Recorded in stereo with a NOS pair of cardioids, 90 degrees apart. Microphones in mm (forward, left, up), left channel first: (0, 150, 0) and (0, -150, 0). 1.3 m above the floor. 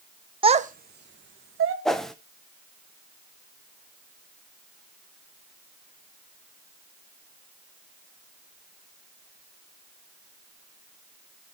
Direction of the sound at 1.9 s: Straight ahead.